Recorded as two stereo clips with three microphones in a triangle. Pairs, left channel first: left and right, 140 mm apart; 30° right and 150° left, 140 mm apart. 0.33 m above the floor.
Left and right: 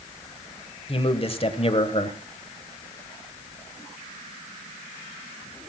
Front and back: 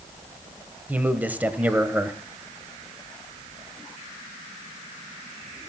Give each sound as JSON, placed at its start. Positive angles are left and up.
{"t": 0.9, "sound": "a man speaking", "azimuth_deg": 75, "distance_m": 1.4}